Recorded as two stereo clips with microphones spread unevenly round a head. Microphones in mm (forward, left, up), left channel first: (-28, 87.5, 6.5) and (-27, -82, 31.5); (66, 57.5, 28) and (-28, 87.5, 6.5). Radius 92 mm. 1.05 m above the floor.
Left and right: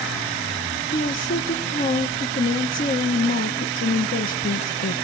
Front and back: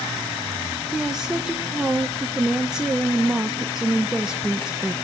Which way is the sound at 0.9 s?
85° left.